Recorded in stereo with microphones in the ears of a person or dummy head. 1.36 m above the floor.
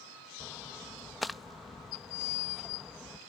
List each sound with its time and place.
0.4 s a splash: 5° right (ahead or behind)